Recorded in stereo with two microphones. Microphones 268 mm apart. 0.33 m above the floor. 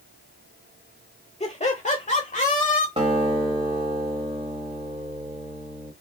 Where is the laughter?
25° left (ahead or behind), 1.1 m; by 2.9 s 30° left (ahead or behind), 1.4 m.